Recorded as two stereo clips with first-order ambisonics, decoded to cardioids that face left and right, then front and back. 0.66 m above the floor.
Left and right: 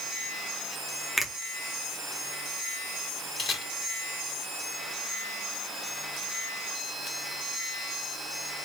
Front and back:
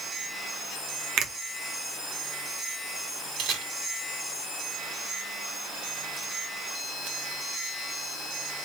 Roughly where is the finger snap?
Behind.